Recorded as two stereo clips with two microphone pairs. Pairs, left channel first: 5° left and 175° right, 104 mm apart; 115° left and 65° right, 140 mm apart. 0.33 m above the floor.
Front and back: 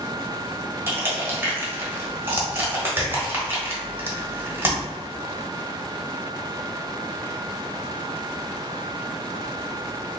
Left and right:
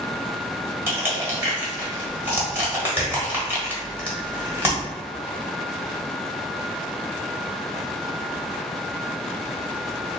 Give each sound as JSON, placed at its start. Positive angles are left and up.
{"t": 0.9, "sound": "crushing", "azimuth_deg": -125, "distance_m": 1.3}